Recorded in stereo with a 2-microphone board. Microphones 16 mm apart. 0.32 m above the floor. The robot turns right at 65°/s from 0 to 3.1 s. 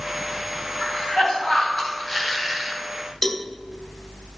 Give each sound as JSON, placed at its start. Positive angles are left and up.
{"t": 0.8, "sound": "a cough", "azimuth_deg": 75, "distance_m": 3.0}
{"t": 3.2, "sound": "a cowbell", "side_deg": 30, "distance_m": 0.7}